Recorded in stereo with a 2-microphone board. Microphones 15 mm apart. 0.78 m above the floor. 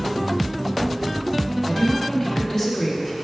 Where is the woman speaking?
20° left (ahead or behind), 1.2 m.